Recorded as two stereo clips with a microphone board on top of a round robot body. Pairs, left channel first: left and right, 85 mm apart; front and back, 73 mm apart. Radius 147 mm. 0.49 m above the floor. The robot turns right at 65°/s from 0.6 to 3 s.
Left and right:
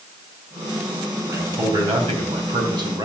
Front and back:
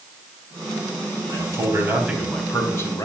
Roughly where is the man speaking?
Behind right.